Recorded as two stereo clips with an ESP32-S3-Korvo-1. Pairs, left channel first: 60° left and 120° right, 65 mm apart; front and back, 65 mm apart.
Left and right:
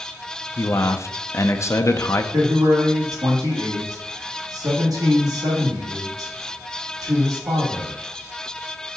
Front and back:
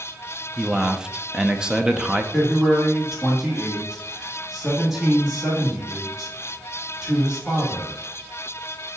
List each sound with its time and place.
0.6 s a man speaking: 100° left, 0.7 m
2.3 s a man speaking: 100° right, 2.0 m